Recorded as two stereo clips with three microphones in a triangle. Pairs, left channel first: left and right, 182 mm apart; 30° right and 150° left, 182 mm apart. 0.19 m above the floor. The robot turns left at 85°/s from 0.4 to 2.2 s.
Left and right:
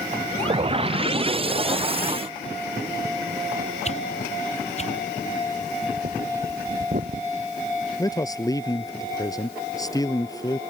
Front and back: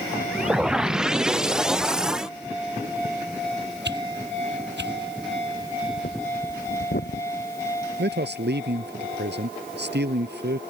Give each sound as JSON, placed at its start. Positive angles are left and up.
{"t": 3.9, "sound": "a whoosh", "azimuth_deg": 140}
{"t": 5.6, "sound": "breathing", "azimuth_deg": -50}
{"t": 8.0, "sound": "a man speaking", "azimuth_deg": 160}